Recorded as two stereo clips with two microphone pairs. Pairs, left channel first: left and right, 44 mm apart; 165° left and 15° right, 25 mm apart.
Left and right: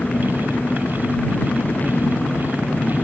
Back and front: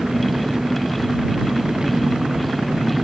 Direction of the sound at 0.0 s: 45° left.